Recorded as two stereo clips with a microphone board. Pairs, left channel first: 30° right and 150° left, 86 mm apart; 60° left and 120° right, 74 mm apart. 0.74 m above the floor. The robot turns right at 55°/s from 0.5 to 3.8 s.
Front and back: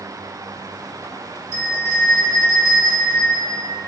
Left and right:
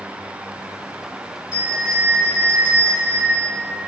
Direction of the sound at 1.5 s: 60° right.